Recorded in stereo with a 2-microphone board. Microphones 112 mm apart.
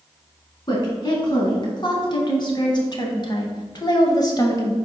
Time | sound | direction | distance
0.7 | a woman speaking | 45° left (ahead or behind) | 2.5 m